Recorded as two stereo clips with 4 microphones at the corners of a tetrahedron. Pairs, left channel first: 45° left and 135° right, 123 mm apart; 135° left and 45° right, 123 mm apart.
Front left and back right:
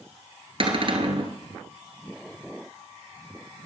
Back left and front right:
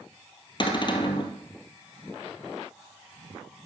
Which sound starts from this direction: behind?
A cupboard door, at 0.6 s.